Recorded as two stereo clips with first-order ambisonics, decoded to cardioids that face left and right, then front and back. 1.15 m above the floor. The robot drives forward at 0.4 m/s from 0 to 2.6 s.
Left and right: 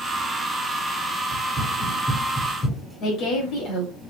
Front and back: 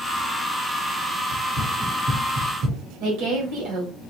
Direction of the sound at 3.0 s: 160° left.